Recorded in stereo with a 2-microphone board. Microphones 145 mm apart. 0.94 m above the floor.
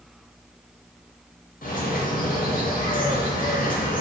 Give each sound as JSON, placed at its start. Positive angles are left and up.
{"t": 1.6, "sound": "a bird", "side_deg": 75, "distance_m": 0.6}